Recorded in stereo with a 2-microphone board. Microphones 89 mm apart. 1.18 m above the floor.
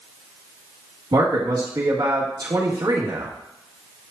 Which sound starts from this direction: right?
A man speaking, at 1.1 s.